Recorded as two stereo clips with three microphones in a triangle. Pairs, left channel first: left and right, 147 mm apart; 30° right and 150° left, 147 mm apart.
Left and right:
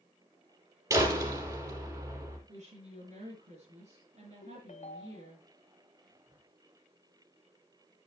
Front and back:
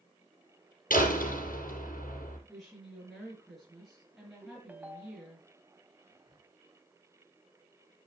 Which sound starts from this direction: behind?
Whispering, at 6.1 s.